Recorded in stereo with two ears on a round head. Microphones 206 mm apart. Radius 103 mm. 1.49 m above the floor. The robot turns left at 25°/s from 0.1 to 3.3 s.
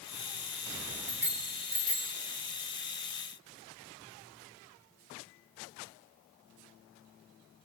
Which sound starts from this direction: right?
A bicycle bell, at 1.1 s.